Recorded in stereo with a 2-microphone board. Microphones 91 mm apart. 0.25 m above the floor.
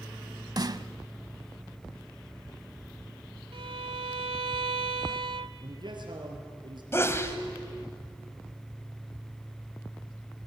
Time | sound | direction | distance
0.6 | a snare drum | 45° right (ahead or behind) | 0.7 m
3.5 | a violin | 70° right (ahead or behind) | 0.9 m
5.6 | a man speaking | 55° right (ahead or behind) | 4.5 m
6.9 | a sneeze | 30° left (ahead or behind) | 1.5 m